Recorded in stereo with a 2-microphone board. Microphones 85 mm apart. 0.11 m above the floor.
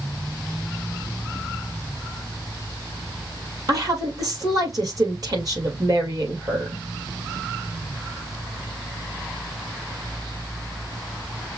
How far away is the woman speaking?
About 2.5 m.